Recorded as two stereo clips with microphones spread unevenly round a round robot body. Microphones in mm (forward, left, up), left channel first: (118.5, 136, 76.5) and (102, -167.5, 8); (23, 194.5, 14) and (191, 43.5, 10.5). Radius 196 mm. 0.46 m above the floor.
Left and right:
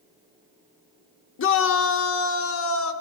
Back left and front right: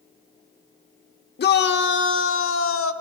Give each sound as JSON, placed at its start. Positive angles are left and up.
{"t": 1.4, "sound": "a shout", "azimuth_deg": 135, "distance_m": 1.1}